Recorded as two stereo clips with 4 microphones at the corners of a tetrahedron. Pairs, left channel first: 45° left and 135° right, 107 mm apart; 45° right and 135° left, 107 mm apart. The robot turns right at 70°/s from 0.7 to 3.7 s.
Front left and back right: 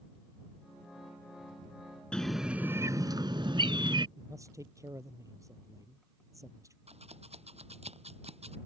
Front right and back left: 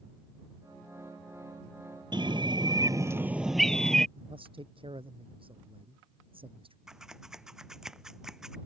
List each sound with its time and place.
2.1 s a bird: 120° left; by 4.1 s 125° right
4.2 s a man speaking: 165° left
6.9 s scissors: 140° right